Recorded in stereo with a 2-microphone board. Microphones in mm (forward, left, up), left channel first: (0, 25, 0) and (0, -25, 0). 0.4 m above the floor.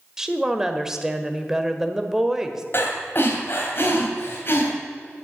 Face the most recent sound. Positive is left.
turn(degrees=45)  # may be behind; listen again after turning